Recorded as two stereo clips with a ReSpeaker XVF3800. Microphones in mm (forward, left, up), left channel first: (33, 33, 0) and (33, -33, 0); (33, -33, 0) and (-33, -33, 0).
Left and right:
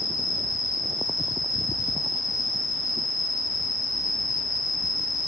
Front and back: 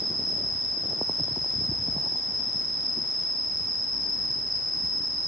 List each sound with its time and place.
0.0 s an insect: 90° left, 7.5 m